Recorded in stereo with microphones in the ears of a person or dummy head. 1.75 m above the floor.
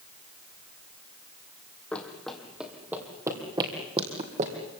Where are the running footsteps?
10° left (ahead or behind), 3.5 m; by 4.5 s 40° right (ahead or behind), 3 m.